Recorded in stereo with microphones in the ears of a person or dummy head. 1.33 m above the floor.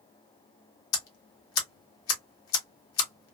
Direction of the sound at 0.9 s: 75° left (ahead or behind).